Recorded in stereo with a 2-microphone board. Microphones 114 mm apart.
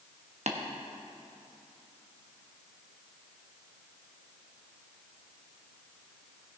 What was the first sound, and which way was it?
Tapping, 80° right.